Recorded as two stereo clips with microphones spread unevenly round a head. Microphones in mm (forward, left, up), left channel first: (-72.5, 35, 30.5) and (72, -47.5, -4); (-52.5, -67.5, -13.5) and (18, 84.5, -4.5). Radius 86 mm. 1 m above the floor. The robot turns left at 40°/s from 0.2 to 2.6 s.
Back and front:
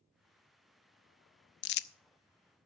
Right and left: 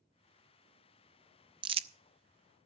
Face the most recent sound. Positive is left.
turn(degrees=90)